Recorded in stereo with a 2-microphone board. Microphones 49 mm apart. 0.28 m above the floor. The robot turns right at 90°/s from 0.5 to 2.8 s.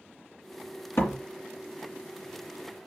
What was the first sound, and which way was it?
A door slam, 70° left (ahead or behind).